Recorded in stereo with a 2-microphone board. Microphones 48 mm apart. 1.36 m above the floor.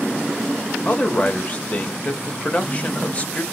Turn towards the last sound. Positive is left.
turn(degrees=30)  # may be behind; listen again after turning